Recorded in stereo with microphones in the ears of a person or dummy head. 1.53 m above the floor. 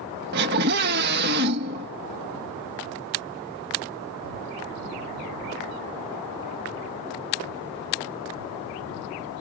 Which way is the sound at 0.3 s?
50° right (ahead or behind).